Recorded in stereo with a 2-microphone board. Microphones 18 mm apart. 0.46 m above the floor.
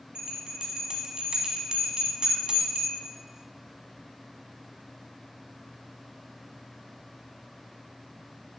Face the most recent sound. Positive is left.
turn(degrees=-60)  # may be behind; listen again after turning